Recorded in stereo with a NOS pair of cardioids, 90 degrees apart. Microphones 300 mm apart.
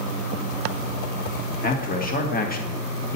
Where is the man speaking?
30° left, 1.9 m.